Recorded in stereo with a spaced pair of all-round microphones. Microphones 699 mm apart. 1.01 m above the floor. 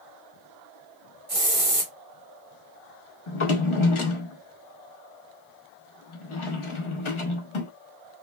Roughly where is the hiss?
Right.